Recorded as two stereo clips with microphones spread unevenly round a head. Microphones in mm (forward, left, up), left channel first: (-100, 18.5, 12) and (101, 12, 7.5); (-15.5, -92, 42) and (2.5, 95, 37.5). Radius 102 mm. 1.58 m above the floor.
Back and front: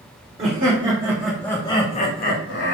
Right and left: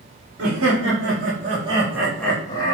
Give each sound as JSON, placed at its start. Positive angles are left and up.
{"t": 0.4, "sound": "laughter", "azimuth_deg": 60, "distance_m": 0.8}